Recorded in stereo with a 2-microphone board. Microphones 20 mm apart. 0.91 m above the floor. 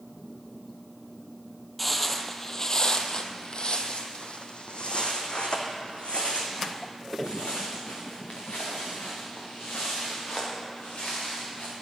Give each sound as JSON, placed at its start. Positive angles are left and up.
{"t": 1.8, "sound": "footsteps", "side_deg": 0, "distance_m": 1.0}